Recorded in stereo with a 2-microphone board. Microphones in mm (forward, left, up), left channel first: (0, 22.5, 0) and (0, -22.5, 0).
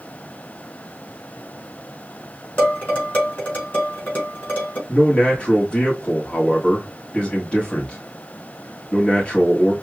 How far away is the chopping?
No chopping in this recording.